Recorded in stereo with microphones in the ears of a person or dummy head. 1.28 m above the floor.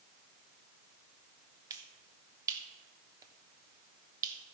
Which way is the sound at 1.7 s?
20° right (ahead or behind).